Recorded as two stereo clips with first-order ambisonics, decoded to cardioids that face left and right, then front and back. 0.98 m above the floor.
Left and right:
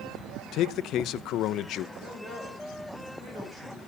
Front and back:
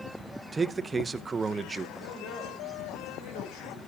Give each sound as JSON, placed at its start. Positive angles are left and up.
{"t": 0.5, "sound": "a man speaking", "azimuth_deg": 105, "distance_m": 0.7}
{"t": 1.9, "sound": "a man speaking", "azimuth_deg": -15, "distance_m": 4.5}